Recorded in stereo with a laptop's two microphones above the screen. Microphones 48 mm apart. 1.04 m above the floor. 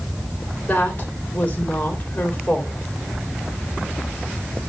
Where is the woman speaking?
35° left (ahead or behind), 3.5 m.